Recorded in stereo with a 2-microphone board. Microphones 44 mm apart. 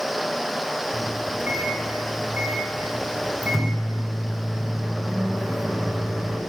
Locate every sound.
0.9 s a microwave: centre (ahead or behind), 1.8 m